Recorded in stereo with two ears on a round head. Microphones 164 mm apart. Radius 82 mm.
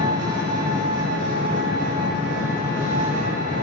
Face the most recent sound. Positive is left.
turn(degrees=-45)  # may be behind; listen again after turning